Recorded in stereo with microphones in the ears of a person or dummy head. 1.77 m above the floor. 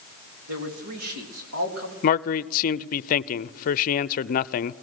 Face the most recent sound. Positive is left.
turn(degrees=45)  # may be behind; listen again after turning